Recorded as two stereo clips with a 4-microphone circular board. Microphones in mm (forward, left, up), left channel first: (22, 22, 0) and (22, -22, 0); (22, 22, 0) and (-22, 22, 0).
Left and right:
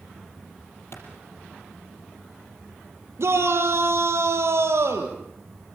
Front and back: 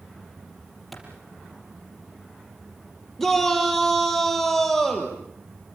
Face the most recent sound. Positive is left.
turn(degrees=-85)